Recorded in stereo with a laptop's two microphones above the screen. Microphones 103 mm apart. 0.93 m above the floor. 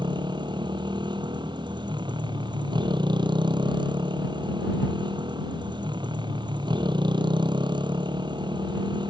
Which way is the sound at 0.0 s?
45° right (ahead or behind).